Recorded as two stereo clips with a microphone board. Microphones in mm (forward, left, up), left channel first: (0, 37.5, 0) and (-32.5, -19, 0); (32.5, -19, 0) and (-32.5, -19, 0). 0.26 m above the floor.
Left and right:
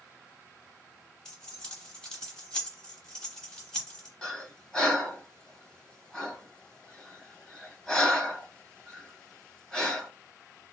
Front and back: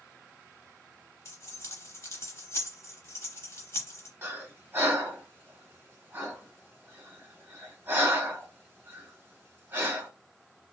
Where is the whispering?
I don't hear whispering.